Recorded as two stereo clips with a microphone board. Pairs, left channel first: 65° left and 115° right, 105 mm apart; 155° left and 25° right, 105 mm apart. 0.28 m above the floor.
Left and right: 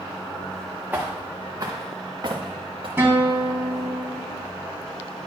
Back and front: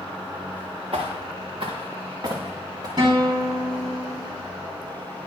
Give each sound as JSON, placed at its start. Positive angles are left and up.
{"t": 0.9, "sound": "footsteps", "azimuth_deg": -45, "distance_m": 1.7}
{"t": 3.0, "sound": "a guitar", "azimuth_deg": -50, "distance_m": 2.0}